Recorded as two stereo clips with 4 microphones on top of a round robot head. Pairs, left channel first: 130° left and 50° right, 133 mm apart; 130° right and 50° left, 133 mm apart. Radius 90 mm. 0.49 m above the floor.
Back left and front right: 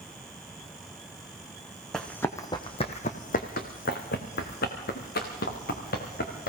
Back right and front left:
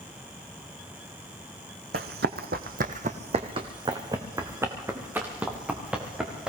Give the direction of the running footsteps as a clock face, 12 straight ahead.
11 o'clock.